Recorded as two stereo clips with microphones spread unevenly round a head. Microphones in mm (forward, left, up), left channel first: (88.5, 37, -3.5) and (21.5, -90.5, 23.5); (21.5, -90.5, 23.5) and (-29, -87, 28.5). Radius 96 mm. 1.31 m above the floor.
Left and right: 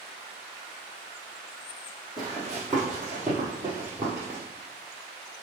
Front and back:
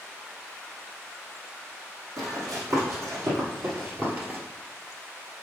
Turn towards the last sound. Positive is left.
turn(degrees=-165)